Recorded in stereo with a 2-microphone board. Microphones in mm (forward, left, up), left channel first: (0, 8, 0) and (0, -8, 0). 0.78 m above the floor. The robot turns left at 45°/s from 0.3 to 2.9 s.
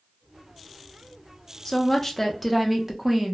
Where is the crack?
I don't hear a crack.